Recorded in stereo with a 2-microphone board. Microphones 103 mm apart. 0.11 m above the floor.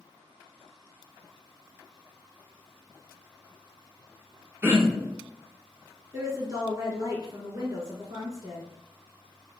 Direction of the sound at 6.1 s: 30° right (ahead or behind).